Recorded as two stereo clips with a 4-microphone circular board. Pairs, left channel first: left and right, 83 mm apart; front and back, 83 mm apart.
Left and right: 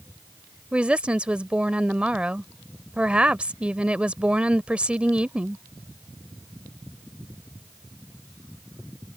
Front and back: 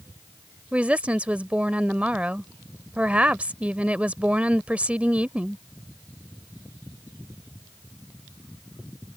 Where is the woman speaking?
140° right.